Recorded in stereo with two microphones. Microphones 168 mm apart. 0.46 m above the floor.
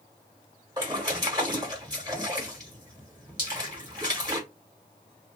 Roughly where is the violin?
No violin in this recording.